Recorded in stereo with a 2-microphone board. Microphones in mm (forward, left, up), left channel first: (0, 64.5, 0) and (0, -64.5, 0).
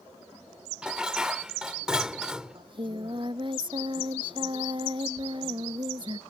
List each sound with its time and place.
0.8 s dishes clattering: 5° right (ahead or behind)
2.5 s singing: 40° right (ahead or behind)